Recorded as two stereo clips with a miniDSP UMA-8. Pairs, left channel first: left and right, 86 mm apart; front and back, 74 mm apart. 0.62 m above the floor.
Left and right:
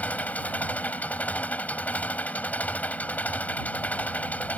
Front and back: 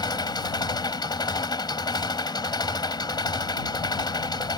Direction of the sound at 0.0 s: 20° left.